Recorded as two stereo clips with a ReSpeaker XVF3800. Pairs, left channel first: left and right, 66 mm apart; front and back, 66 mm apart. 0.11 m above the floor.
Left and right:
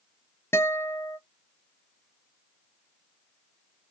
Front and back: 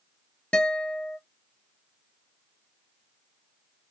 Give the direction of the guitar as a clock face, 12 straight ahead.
10 o'clock.